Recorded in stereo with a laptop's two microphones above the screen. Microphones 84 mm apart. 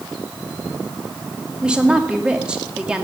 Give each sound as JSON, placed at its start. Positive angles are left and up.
{"t": 1.6, "sound": "a woman speaking", "side_deg": -10, "distance_m": 2.5}